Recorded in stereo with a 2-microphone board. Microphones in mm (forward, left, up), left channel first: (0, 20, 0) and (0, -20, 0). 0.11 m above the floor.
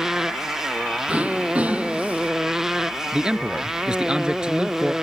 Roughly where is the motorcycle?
Centre.